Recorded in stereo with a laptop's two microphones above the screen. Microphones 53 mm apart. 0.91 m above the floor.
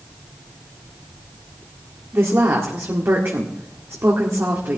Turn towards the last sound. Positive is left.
turn(degrees=-55)  # may be behind; listen again after turning